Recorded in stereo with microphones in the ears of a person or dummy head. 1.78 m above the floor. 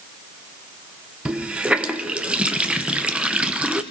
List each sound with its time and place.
1.2 s a running tap: 5° right (ahead or behind), 0.8 m